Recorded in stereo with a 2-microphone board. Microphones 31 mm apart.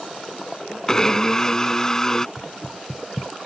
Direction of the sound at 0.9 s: 20° left (ahead or behind).